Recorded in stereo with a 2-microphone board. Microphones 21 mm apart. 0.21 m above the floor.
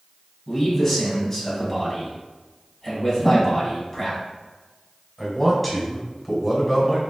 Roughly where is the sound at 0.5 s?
Centre.